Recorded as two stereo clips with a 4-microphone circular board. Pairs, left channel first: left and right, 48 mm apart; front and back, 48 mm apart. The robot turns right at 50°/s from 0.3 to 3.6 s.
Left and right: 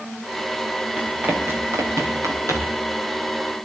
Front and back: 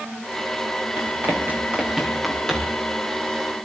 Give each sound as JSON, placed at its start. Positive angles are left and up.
{"t": 1.0, "sound": "running footsteps", "azimuth_deg": -150, "distance_m": 8.5}